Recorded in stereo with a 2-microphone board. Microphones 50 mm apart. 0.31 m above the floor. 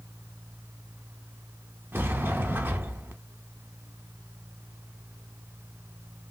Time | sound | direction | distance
1.9 | a sliding door | 45° right (ahead or behind) | 0.6 m